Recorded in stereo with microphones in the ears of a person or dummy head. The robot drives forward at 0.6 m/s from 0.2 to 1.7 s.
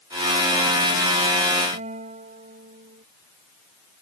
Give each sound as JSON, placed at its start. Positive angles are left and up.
{"t": 1.7, "sound": "a guitar", "side_deg": -40}